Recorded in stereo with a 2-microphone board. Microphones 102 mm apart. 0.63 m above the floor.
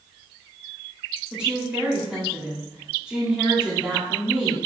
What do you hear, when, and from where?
1.3 s a woman speaking: 10° right (ahead or behind), 1.2 m